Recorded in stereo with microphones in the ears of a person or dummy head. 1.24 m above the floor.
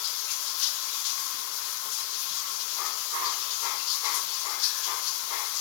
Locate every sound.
0.0 s running water: 70° left (ahead or behind), 1.4 m